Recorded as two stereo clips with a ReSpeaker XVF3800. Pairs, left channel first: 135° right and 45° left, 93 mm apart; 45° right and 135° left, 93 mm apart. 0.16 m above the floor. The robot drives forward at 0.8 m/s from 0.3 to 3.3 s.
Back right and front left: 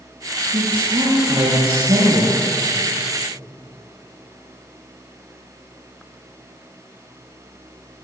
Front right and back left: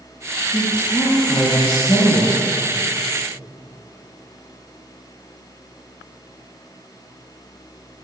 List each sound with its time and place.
0.5 s a woman speaking: 5° left, 5.5 m